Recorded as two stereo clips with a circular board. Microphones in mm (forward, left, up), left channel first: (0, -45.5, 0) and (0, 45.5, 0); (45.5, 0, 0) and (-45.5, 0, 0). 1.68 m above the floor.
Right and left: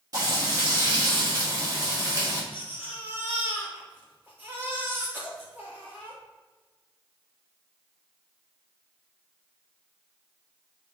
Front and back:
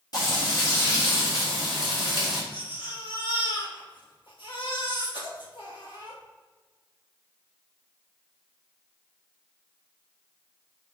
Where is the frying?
40° left, 3 m.